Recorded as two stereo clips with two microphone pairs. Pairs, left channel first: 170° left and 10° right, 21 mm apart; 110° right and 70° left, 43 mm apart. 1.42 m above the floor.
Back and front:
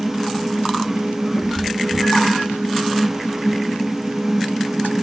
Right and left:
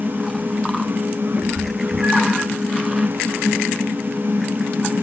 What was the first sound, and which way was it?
A cat meowing, 150° left.